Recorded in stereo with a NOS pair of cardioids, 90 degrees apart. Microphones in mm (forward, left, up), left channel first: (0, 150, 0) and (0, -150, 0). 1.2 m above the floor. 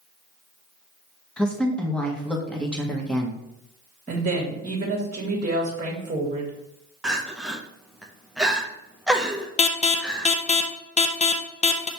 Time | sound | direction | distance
1.4 | a woman speaking | 5° left | 1.3 m
4.1 | a woman speaking | 25° right | 1.6 m
7.0 | crying | straight ahead | 0.8 m
9.6 | an alarm | 20° left | 0.6 m